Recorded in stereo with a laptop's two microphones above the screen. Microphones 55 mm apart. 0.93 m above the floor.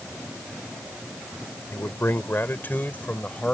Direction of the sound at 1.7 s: 55° left (ahead or behind).